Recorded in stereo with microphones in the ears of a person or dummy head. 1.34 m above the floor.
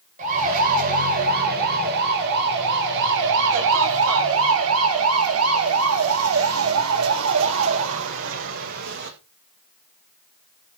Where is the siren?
45° right (ahead or behind), 8 m; by 9.1 s 65° right (ahead or behind), 8.5 m.